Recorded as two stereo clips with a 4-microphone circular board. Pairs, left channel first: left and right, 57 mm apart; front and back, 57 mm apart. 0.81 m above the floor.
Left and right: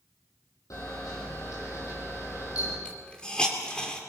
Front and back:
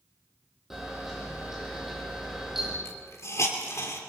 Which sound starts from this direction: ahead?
A hiss, at 2.9 s.